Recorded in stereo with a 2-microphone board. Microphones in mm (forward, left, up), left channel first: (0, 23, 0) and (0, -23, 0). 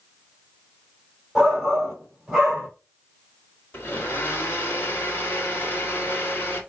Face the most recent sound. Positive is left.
turn(degrees=50)  # may be behind; listen again after turning